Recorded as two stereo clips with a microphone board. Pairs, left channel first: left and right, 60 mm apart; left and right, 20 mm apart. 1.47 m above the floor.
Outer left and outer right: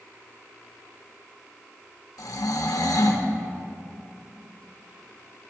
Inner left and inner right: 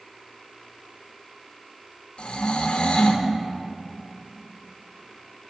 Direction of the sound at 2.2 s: 75° left (ahead or behind).